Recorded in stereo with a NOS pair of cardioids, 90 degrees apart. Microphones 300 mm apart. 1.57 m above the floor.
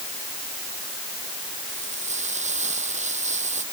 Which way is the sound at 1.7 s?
25° right.